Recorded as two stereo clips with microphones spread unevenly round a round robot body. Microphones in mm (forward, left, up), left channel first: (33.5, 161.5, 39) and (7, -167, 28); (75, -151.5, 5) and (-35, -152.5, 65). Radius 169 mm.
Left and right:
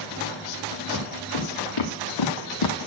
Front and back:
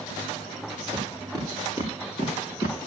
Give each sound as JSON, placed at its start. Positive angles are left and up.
{"t": 0.9, "sound": "footsteps", "azimuth_deg": 65, "distance_m": 3.0}